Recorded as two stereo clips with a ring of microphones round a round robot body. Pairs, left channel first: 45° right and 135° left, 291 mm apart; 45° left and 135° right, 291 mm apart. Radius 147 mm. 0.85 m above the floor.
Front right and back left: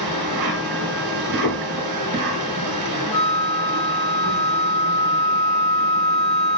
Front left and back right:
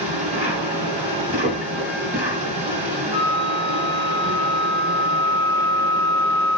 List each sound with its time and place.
0.0 s an insect: 155° left, 1.4 m
1.4 s knocking: 85° right, 2 m
3.1 s a flute: 125° right, 1.6 m